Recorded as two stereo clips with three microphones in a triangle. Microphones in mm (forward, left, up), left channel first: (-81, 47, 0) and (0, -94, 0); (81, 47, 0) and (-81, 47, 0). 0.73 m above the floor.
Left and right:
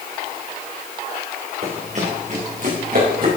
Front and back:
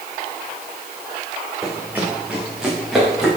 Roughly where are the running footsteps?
Right.